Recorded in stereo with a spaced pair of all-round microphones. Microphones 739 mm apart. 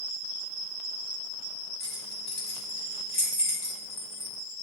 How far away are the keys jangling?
About 2.5 m.